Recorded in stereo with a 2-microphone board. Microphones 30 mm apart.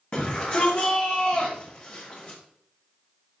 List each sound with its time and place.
0.1 s a shout: 40° left (ahead or behind), 1.4 m